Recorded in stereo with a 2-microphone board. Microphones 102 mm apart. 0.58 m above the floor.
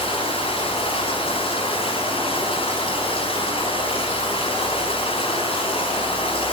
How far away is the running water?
About 4 m.